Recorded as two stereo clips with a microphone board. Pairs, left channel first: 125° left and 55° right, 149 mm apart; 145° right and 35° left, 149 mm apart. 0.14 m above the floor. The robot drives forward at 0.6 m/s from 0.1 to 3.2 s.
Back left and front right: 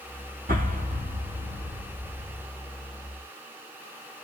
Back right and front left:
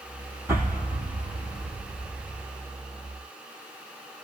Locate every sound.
0.5 s an explosion: 35° right, 2 m; by 2.5 s 65° right, 1.4 m